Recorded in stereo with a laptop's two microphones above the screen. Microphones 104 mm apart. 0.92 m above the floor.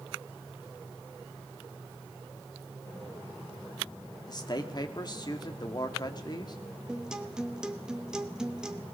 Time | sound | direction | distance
4.3 | a man speaking | 40° left (ahead or behind) | 2 m
6.9 | a guitar | 5° right (ahead or behind) | 1.3 m